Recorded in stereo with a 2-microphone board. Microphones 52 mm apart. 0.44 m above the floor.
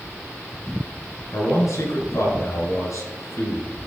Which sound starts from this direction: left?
A man speaking, at 1.3 s.